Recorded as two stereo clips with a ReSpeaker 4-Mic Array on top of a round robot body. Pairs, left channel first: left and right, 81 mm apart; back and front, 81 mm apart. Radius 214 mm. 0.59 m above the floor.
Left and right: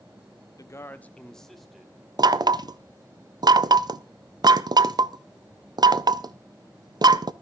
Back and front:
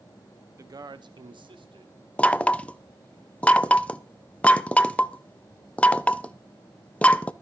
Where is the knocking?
110° right, 0.7 m.